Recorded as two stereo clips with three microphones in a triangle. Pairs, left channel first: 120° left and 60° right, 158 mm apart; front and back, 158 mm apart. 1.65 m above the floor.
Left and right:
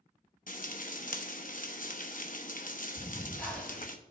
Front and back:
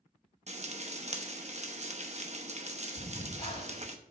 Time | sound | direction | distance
0.5 | frying | 140° left | 0.9 m
3.0 | breathing | 40° left | 2 m